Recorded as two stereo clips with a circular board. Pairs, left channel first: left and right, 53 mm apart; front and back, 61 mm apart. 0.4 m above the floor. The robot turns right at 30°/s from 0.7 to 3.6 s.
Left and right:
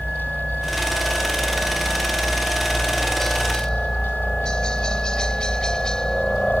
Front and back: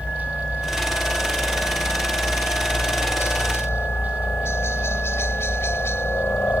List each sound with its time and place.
0.0 s a helicopter: 65° right; by 6.6 s 20° left